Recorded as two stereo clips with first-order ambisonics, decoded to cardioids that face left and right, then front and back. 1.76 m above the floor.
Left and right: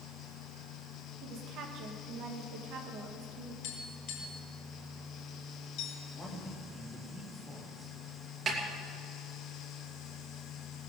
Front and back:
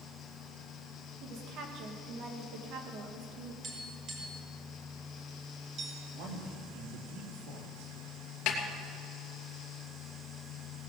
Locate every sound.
1.2 s a woman speaking: 135° right, 2.5 m
3.6 s tapping: 125° left, 5.5 m
6.1 s a man speaking: 175° left, 3 m
8.5 s a snare drum: 30° right, 2.5 m